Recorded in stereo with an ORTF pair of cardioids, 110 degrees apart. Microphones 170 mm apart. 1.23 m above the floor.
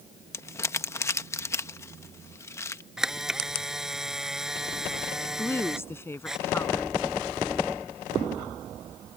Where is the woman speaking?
15° left.